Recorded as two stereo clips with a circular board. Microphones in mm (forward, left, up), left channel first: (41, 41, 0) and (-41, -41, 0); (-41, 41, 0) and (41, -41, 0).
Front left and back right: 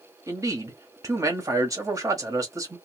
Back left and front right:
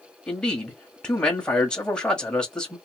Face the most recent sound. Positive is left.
turn(degrees=-150)